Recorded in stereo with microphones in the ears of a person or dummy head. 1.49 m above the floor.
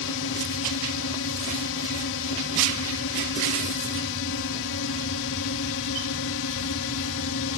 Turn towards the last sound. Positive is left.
turn(degrees=70)  # may be behind; listen again after turning